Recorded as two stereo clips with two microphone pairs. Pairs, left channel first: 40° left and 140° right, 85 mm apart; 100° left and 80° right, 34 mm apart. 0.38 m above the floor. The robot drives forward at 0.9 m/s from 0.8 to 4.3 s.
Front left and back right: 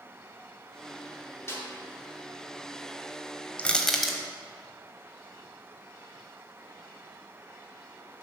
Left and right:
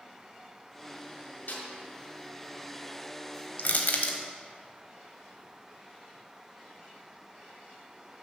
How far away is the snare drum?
About 1.8 m.